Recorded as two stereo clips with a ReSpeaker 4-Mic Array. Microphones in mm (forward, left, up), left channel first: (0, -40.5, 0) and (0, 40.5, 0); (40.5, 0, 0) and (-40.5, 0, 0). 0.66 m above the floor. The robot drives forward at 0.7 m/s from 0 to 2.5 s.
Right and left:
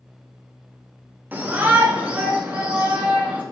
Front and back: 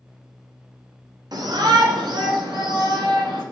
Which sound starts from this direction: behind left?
A shout, at 1.3 s.